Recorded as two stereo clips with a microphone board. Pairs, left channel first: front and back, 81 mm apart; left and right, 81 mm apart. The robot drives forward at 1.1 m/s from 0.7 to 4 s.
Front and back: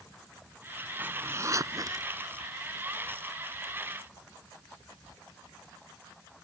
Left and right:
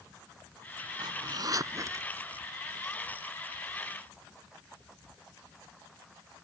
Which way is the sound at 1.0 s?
110° right.